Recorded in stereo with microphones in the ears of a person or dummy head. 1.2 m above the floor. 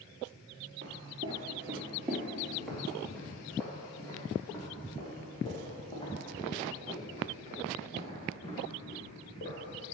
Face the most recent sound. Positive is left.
turn(degrees=35)  # may be behind; listen again after turning